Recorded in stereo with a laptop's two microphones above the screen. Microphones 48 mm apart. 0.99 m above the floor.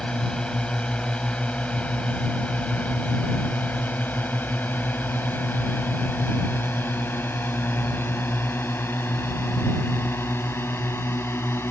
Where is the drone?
20° left (ahead or behind); by 11.7 s 70° left (ahead or behind).